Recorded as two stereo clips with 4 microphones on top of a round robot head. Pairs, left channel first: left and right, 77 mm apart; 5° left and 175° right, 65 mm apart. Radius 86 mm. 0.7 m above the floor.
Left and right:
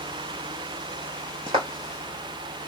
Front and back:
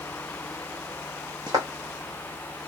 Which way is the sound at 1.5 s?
130° right.